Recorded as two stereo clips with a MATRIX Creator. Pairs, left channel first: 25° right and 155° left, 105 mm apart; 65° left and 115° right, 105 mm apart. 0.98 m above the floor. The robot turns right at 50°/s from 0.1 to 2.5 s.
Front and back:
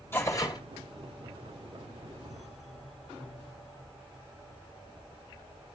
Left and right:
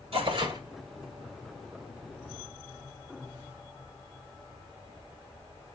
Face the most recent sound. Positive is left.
turn(degrees=30)